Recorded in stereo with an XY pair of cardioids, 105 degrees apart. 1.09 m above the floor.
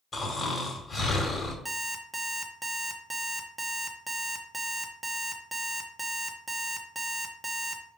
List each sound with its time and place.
0.1 s snoring: 30° left, 2 m
1.6 s an alarm clock: 15° right, 1.1 m